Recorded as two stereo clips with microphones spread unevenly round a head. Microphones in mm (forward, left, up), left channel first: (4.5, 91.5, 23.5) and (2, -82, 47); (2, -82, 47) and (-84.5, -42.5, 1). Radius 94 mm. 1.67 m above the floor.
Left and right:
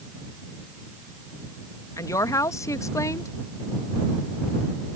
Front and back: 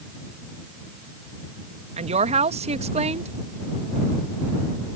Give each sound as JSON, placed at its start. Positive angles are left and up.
{"t": 2.0, "sound": "a woman speaking", "azimuth_deg": 165}